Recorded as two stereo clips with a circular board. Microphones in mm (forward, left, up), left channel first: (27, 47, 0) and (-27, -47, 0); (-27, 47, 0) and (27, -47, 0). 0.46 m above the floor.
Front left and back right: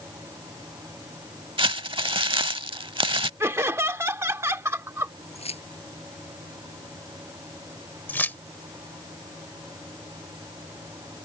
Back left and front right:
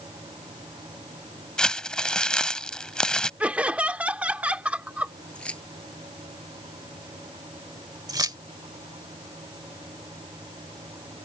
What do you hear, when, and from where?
1.6 s crumpling: 160° right
3.4 s laughter: 115° right
5.3 s keys jangling: 40° left
8.1 s keys jangling: 10° right